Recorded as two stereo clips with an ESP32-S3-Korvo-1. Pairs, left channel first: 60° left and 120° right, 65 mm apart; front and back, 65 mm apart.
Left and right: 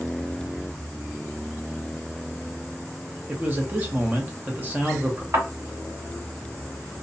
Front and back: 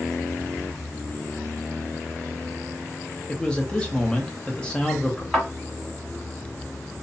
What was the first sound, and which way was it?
A man speaking, 70° right.